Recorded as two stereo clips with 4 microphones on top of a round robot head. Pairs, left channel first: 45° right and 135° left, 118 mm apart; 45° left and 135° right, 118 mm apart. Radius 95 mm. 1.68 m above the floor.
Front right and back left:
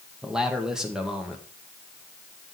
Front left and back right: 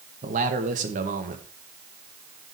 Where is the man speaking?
135° right, 2 m.